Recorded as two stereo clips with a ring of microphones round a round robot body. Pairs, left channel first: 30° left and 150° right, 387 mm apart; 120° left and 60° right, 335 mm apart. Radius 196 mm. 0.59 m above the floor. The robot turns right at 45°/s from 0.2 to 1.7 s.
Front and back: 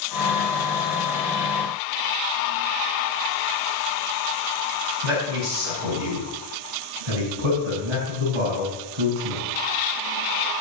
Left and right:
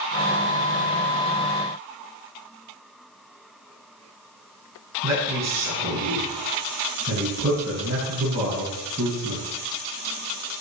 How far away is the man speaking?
About 4.5 m.